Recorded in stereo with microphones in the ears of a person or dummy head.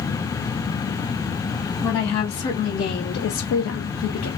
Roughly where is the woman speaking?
Left.